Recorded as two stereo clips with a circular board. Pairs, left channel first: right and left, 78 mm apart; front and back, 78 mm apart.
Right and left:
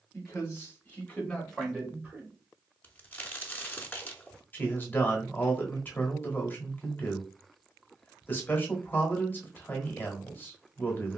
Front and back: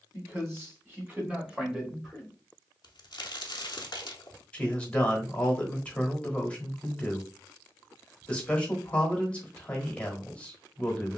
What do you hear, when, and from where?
0.1 s a man speaking: 135° right, 1.5 m; by 2.3 s 80° left, 0.9 m
2.8 s a crack: 20° right, 0.6 m
4.5 s a man speaking: 60° right, 1.0 m